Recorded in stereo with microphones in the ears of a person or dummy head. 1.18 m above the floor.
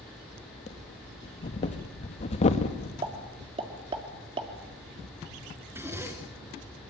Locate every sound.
0.7 s breathing: 35° left (ahead or behind), 1.7 m
3.0 s a pop: 30° right (ahead or behind), 3 m
5.7 s a zipper: 10° right (ahead or behind), 2.5 m